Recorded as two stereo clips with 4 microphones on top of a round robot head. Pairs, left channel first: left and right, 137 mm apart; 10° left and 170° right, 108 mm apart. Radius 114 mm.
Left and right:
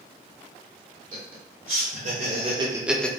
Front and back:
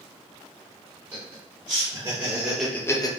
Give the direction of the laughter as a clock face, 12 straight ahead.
4 o'clock.